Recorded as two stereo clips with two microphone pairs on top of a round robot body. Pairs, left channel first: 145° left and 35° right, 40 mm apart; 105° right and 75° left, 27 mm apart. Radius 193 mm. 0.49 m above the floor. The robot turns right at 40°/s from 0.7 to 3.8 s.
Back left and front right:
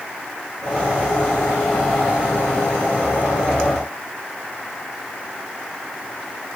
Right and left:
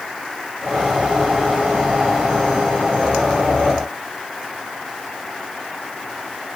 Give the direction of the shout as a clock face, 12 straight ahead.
I don't hear a shout.